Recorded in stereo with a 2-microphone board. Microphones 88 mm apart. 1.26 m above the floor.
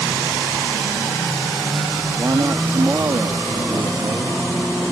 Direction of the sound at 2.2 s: 30° right (ahead or behind).